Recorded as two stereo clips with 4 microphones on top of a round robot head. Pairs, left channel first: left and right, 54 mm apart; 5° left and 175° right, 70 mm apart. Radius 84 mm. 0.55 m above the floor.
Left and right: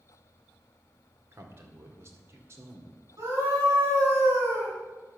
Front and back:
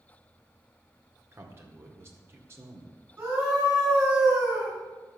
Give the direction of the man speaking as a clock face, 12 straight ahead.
4 o'clock.